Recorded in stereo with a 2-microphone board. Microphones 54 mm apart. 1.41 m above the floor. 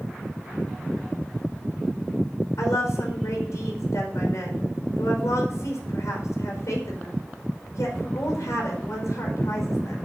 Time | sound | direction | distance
2.6 | a woman speaking | 85° left | 5 m